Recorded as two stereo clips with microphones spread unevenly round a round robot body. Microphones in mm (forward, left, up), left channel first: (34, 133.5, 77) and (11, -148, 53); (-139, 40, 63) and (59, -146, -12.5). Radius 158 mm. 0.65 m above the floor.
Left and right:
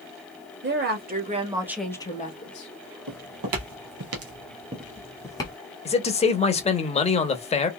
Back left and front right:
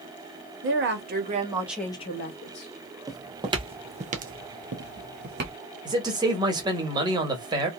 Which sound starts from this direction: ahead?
A man speaking, at 5.8 s.